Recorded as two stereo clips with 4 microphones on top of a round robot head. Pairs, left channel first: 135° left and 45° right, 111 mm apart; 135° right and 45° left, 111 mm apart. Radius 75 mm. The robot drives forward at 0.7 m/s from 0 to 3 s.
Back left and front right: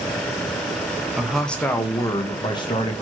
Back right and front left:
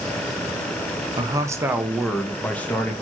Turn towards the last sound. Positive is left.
turn(degrees=160)